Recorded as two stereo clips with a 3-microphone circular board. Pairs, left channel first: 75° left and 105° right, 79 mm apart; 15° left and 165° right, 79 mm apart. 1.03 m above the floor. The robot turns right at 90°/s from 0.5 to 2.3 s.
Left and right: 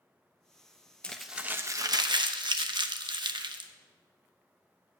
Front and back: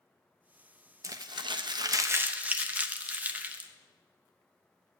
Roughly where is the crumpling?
Behind left.